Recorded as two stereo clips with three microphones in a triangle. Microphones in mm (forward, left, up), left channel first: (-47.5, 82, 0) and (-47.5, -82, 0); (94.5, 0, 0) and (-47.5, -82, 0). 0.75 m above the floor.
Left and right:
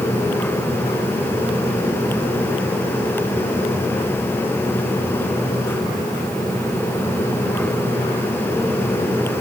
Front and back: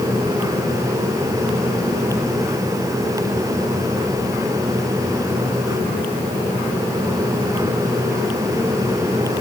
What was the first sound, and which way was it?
Only background noise.